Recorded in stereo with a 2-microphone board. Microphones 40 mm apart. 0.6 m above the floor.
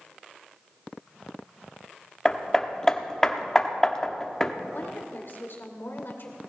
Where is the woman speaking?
60° left (ahead or behind), 2.5 m.